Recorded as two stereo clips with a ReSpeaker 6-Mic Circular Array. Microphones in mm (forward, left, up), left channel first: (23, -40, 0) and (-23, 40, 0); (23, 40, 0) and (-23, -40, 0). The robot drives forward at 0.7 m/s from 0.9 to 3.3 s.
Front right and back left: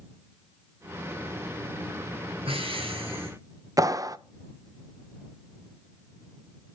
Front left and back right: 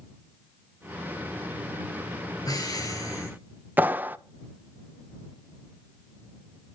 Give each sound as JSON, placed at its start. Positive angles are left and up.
{"t": 2.5, "sound": "breathing", "azimuth_deg": 110, "distance_m": 4.0}
{"t": 3.8, "sound": "a clap", "azimuth_deg": 170, "distance_m": 0.7}